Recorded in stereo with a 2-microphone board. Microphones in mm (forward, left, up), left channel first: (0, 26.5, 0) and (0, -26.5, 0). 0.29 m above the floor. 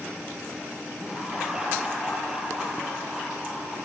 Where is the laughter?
10° right (ahead or behind), 6 m.